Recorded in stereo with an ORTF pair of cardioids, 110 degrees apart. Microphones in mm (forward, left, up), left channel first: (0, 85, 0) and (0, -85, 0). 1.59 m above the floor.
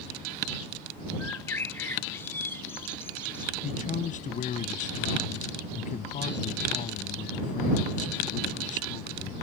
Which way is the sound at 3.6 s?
45° left.